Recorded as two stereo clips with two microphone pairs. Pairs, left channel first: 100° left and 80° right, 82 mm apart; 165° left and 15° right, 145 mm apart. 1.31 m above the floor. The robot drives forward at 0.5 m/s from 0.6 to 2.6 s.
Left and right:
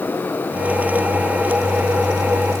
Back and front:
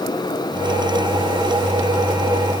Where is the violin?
No violin in this recording.